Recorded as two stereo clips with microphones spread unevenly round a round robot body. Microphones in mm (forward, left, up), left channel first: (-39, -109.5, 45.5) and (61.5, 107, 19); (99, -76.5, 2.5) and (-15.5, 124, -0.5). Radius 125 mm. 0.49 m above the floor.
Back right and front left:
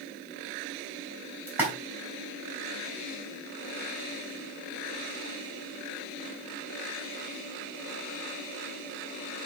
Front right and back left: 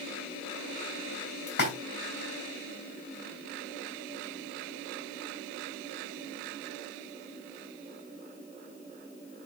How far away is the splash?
About 4.5 m.